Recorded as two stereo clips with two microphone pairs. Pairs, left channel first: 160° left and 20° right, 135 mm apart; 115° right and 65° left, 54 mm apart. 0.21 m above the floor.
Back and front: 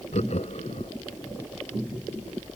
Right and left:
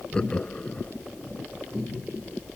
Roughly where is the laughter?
Behind.